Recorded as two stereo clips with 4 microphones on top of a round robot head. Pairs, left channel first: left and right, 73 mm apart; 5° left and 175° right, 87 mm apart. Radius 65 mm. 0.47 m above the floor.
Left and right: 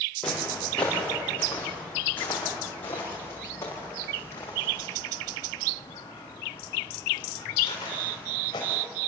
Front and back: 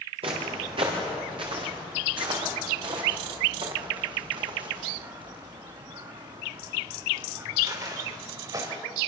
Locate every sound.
0.2 s footsteps: 170° left, 7.5 m; by 8.7 s 140° left, 9 m